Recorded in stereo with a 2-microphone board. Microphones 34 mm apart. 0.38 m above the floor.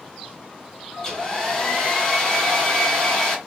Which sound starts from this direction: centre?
A hair dryer, at 1.0 s.